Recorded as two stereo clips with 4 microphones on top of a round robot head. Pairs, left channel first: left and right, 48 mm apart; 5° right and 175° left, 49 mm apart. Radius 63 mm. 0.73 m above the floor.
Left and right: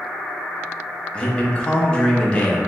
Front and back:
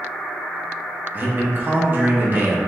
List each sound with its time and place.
1.1 s a man speaking: 150° left, 0.9 m